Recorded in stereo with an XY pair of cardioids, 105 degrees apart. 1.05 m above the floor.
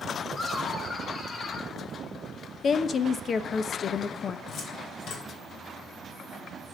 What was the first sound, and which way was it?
Laughter, 40° left.